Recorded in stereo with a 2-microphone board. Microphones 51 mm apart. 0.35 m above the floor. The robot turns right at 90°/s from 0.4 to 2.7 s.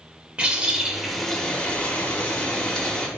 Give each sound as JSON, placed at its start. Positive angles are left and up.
{"t": 0.4, "sound": "a bird", "side_deg": -20, "distance_m": 0.7}